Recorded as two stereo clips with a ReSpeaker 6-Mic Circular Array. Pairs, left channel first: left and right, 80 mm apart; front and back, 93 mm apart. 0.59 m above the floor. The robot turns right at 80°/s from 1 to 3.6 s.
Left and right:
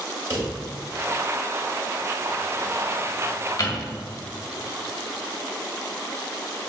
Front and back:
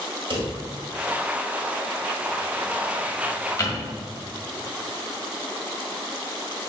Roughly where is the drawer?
Behind right.